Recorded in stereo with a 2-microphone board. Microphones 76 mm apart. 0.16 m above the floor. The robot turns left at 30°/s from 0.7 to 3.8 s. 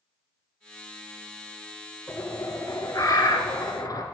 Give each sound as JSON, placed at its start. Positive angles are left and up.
{"t": 2.1, "sound": "a bird", "azimuth_deg": 130, "distance_m": 1.4}